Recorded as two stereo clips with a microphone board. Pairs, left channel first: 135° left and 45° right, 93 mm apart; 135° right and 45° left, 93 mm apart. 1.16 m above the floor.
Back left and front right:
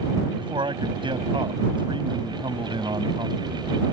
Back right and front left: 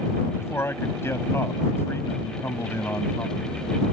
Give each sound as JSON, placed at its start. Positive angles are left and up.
{"t": 0.4, "sound": "a man speaking", "azimuth_deg": -75}